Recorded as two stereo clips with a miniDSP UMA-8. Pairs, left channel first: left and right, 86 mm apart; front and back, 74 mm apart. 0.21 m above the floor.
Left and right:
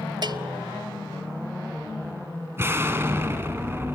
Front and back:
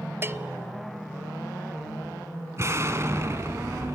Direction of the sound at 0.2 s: 125° right.